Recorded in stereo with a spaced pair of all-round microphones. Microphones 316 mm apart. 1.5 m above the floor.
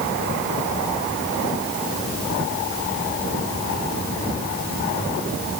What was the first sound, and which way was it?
Only background noise.